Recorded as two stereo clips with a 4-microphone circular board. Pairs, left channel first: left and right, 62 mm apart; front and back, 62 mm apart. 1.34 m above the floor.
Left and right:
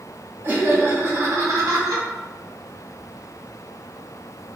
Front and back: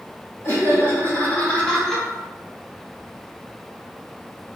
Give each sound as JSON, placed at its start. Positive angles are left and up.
{"t": 0.4, "sound": "laughter", "azimuth_deg": -40, "distance_m": 2.0}